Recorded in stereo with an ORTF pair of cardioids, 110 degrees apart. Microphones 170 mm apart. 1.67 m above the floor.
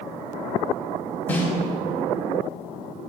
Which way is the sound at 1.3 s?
10° left.